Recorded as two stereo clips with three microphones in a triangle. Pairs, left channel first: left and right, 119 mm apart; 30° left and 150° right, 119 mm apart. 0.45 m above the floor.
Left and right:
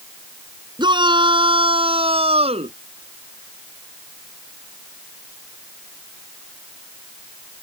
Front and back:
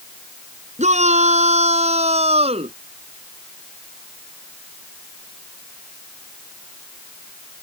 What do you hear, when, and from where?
0.8 s a shout: 140° right; by 2.8 s 120° right